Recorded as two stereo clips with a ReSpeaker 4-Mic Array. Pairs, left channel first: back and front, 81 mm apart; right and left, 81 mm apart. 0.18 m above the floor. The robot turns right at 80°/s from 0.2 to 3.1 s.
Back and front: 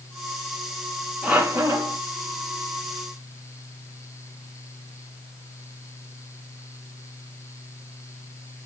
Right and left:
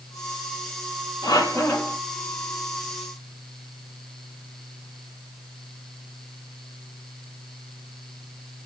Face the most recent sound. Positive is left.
turn(degrees=75)